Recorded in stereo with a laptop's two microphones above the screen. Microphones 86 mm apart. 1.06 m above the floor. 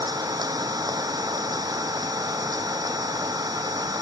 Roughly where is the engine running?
Right.